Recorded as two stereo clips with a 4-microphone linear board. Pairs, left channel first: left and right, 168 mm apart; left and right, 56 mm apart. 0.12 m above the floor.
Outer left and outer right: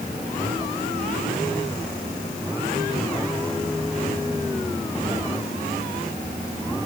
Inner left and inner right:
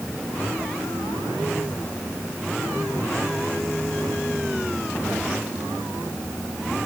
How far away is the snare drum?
I don't hear a snare drum.